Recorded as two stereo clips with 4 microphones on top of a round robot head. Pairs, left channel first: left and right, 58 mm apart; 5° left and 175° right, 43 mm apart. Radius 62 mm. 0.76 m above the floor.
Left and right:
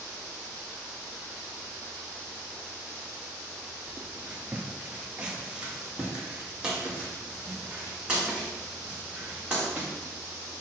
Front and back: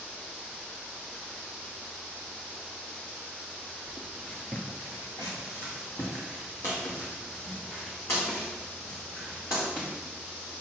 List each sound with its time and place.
3.9 s footsteps: 160° right, 0.7 m; by 9.9 s 15° right, 4.5 m